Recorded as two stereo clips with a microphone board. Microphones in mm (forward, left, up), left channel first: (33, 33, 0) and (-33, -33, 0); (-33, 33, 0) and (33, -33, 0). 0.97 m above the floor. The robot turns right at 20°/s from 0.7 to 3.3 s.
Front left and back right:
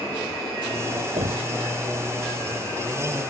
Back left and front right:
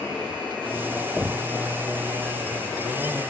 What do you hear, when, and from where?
1.2 s knocking: 130° right; by 1.5 s 120° right